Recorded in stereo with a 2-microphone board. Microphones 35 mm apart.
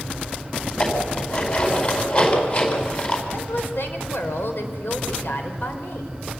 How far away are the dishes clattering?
About 4.5 m.